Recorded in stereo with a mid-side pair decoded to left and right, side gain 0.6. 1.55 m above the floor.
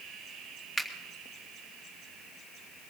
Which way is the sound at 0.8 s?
10° left.